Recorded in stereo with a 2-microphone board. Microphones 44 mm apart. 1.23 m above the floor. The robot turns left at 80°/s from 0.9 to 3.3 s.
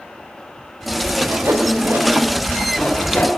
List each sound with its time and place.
1.2 s sawing: 55° right (ahead or behind), 3.5 m; by 3.3 s 40° left (ahead or behind), 3.5 m